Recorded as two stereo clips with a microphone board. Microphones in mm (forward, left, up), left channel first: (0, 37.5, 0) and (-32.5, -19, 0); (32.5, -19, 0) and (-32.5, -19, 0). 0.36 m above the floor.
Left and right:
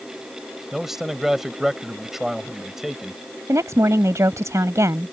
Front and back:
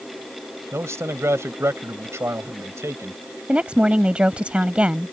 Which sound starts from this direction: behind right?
A woman speaking, at 3.5 s.